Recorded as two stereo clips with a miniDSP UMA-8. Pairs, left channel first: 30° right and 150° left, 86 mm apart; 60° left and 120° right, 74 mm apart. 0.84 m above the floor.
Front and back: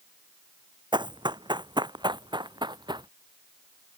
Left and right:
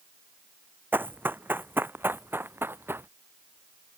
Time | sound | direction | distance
0.9 | running footsteps | 175° left | ?